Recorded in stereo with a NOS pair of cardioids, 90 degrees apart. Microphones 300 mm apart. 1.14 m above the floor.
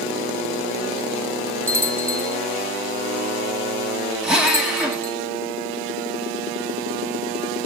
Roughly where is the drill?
Ahead.